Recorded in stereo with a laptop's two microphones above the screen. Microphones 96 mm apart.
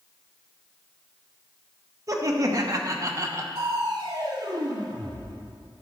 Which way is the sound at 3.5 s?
55° right (ahead or behind).